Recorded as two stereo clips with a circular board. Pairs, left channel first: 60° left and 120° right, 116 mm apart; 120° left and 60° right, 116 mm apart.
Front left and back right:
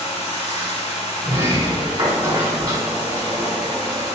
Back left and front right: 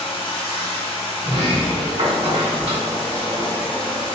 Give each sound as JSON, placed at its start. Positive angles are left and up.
{"t": 0.0, "sound": "running water", "azimuth_deg": 75, "distance_m": 0.7}
{"t": 1.2, "sound": "a sliding door", "azimuth_deg": -75, "distance_m": 1.4}